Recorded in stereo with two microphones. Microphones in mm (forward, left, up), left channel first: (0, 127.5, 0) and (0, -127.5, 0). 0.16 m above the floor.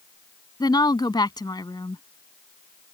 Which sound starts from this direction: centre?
A woman speaking, at 0.6 s.